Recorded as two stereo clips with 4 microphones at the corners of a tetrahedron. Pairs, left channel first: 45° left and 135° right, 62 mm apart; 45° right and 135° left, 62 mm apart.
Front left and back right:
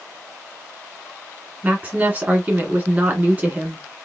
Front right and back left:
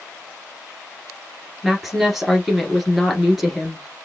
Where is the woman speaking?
140° right, 1.7 m.